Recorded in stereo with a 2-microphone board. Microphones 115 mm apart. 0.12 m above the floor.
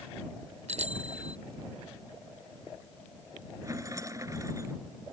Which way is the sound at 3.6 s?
30° right (ahead or behind).